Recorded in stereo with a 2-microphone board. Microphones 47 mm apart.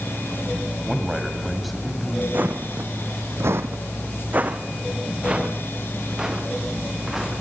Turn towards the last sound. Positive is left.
turn(degrees=-5)  # may be behind; listen again after turning